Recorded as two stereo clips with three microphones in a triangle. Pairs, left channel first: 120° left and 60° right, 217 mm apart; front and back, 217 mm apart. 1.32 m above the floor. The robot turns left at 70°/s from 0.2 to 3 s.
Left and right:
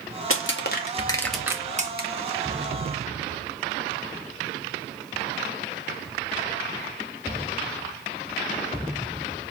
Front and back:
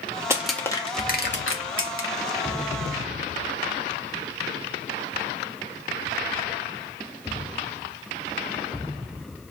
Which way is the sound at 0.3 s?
105° left.